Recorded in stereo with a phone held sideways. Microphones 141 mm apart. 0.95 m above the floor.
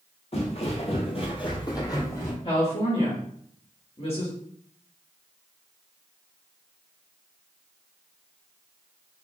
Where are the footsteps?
50° left (ahead or behind), 1.5 m; by 2.4 s 15° left (ahead or behind), 1.6 m.